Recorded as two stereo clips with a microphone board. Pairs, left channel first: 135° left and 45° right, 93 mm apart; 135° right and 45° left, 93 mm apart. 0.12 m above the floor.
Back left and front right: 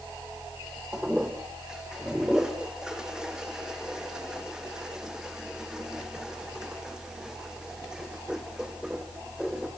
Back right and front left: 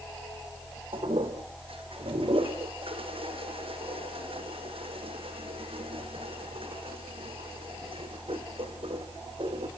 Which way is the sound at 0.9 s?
35° left.